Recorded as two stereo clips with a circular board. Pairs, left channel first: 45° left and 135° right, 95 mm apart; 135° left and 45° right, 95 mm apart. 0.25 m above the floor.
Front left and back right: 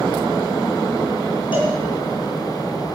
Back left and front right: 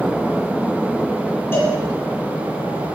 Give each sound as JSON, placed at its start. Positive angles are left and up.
{"t": 1.5, "sound": "a cowbell", "azimuth_deg": 70, "distance_m": 6.5}